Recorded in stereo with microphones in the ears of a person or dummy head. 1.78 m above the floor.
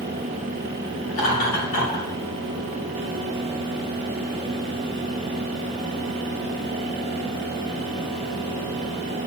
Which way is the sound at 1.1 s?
65° left (ahead or behind).